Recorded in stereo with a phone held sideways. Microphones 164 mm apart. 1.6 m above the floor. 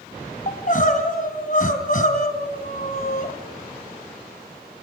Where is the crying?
55° left (ahead or behind), 2.5 m.